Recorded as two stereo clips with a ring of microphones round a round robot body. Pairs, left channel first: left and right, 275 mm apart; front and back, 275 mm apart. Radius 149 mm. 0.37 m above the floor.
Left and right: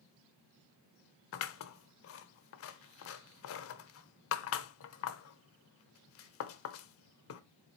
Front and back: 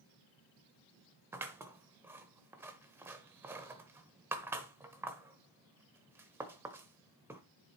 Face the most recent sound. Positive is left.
turn(degrees=100)